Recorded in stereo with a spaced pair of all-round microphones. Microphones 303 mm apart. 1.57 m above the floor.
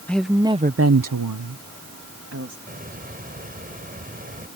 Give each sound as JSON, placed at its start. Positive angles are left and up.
{"t": 0.1, "sound": "a woman speaking", "side_deg": 5}
{"t": 2.7, "sound": "a hiss", "side_deg": -25}